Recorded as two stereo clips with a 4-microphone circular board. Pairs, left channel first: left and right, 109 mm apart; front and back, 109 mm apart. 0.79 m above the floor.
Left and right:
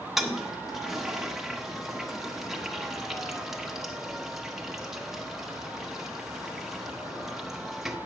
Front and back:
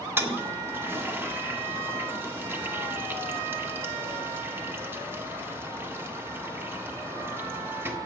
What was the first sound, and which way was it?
A toilet flushing, 170° right.